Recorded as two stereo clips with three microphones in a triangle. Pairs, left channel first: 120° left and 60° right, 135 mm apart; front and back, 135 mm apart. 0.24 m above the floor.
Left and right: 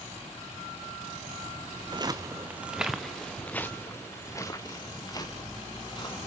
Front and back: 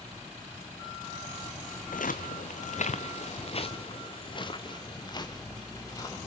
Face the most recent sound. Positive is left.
turn(degrees=65)